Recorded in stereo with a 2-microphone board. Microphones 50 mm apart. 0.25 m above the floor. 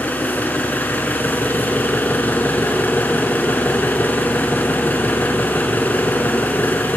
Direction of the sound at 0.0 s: 40° left (ahead or behind).